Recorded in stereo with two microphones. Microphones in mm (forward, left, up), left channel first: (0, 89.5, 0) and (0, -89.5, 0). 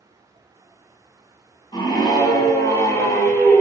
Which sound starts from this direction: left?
A scream, at 1.7 s.